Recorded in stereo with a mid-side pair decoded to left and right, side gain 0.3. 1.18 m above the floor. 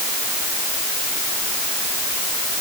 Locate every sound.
Only background noise.